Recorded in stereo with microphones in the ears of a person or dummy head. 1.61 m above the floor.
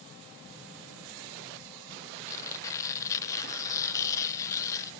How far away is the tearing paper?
About 0.6 m.